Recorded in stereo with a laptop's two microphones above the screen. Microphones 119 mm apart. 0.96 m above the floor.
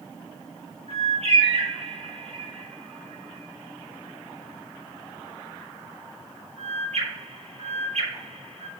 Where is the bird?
60° right (ahead or behind), 3 m.